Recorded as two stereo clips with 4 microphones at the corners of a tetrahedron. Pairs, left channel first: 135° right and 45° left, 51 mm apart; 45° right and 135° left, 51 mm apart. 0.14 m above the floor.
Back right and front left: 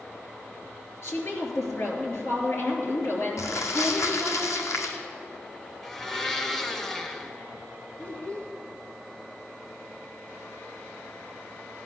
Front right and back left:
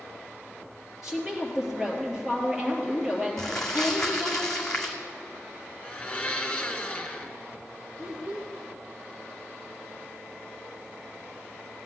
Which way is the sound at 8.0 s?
165° right.